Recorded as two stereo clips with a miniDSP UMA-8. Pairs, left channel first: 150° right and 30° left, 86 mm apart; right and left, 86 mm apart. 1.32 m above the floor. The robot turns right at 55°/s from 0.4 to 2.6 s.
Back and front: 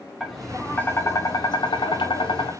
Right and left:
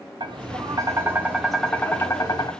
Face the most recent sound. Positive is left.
turn(degrees=-120)